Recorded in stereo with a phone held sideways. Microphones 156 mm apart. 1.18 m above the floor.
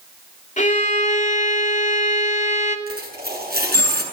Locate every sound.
0.6 s a violin: 55° left (ahead or behind), 2.5 m
2.9 s a dropped coin: 85° right, 7.5 m